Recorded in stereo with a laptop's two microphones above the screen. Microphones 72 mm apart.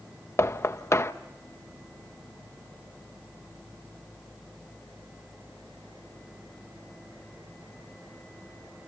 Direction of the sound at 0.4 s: 45° left (ahead or behind).